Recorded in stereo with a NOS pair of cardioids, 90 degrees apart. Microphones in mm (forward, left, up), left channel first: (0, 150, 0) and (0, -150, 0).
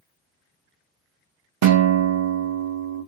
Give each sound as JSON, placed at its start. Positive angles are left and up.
{"t": 1.6, "sound": "a guitar", "azimuth_deg": -65, "distance_m": 0.8}